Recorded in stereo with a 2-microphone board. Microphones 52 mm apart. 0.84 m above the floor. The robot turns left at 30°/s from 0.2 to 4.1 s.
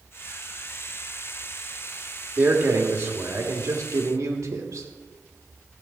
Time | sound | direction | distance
2.4 | a man speaking | 30° right | 1.6 m